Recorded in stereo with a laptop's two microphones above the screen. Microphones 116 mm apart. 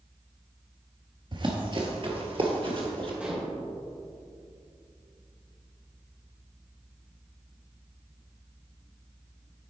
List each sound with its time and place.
1.3 s running footsteps: 40° right (ahead or behind), 1.2 m; by 3.1 s 50° right (ahead or behind), 1.7 m
3.2 s dishes clattering: 10° right (ahead or behind), 3 m